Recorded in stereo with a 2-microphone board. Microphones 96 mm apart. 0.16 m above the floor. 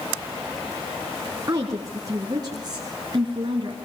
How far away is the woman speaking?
About 2 m.